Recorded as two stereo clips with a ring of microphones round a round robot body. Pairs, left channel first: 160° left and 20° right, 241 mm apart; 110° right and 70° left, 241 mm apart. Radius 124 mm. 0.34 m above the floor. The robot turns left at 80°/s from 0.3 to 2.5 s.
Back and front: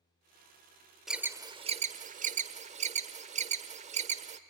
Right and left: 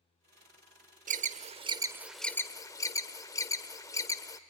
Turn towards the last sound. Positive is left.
turn(degrees=-50)